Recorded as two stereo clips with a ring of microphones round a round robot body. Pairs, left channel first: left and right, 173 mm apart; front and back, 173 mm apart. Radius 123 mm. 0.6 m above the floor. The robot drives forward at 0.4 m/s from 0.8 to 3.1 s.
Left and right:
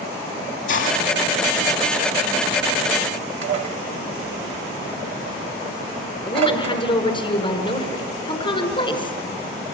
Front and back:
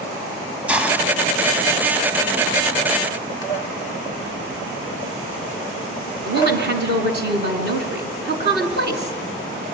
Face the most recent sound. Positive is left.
turn(degrees=160)